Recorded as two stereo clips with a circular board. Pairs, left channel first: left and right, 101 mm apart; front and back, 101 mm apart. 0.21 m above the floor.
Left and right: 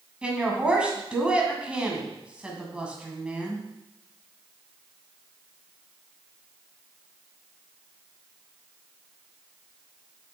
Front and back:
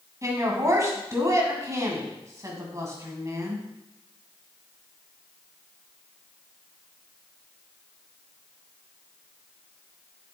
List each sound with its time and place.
0.2 s a woman speaking: 160° right, 1.8 m